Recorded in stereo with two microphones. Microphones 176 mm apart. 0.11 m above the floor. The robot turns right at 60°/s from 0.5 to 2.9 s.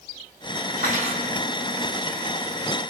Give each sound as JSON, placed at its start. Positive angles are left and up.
{"t": 0.8, "sound": "cutlery clinking", "azimuth_deg": -60, "distance_m": 2.0}